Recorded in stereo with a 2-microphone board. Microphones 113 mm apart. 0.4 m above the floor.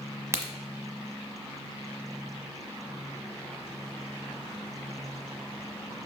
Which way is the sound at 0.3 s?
25° right (ahead or behind).